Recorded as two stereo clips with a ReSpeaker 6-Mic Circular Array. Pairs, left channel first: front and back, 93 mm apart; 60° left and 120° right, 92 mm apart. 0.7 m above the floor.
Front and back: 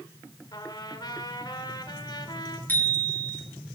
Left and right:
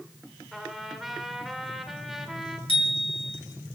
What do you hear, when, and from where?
0.5 s a trumpet: 35° right, 2.5 m
2.7 s a bicycle bell: 70° left, 4.5 m